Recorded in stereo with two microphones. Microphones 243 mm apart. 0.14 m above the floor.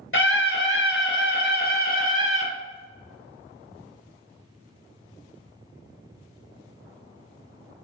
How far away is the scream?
About 2.5 m.